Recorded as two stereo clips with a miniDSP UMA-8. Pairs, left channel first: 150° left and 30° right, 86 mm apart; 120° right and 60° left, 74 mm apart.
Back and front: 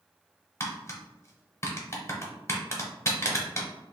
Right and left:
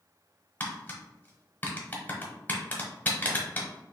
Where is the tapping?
170° right, 0.9 m.